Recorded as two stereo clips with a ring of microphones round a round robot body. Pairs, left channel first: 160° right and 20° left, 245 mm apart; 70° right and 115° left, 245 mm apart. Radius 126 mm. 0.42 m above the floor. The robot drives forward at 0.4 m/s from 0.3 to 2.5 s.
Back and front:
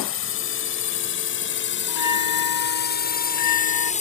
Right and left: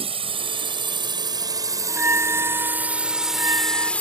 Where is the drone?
175° left; by 4.0 s 145° right.